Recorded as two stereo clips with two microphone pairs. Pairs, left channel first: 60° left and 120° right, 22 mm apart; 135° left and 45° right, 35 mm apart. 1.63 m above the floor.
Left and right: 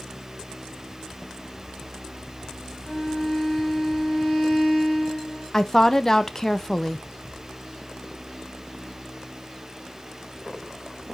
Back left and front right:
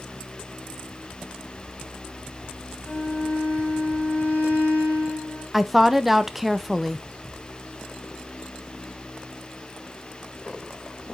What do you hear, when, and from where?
2.9 s a violin: 105° left, 5 m
5.5 s a woman speaking: 25° left, 0.6 m